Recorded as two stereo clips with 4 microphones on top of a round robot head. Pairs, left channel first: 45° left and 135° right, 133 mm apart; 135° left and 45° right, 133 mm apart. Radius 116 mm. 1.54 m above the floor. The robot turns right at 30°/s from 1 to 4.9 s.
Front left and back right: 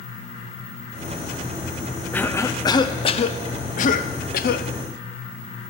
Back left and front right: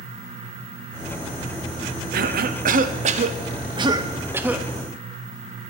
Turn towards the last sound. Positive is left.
turn(degrees=50)